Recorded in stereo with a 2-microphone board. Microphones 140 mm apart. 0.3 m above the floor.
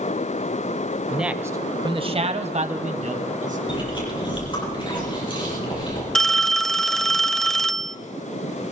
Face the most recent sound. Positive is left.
turn(degrees=0)  # may be behind; listen again after turning